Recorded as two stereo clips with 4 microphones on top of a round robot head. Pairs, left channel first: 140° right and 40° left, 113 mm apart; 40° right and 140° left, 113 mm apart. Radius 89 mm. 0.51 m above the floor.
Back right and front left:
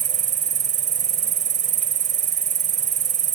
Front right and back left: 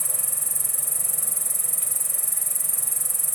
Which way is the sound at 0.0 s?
50° left.